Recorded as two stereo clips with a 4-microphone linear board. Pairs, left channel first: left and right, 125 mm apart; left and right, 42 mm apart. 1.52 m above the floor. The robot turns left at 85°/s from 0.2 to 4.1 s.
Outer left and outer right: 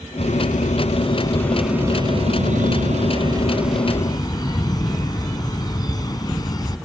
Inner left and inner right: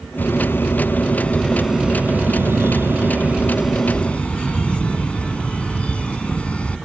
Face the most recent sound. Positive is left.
turn(degrees=150)